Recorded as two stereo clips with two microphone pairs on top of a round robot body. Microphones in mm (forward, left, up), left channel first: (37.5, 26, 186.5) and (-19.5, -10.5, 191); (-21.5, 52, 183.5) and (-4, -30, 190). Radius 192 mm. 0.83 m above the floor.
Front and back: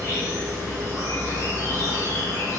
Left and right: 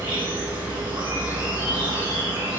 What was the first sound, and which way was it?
An insect, 105° right.